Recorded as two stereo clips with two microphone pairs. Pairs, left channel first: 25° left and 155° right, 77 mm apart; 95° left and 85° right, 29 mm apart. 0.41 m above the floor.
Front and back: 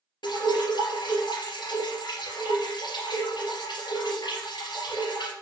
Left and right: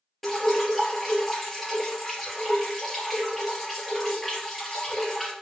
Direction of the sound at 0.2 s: 10° left.